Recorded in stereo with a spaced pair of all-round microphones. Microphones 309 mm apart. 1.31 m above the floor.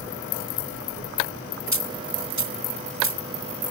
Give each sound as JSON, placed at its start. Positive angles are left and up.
{"t": 1.7, "sound": "a dropped coin", "side_deg": -65}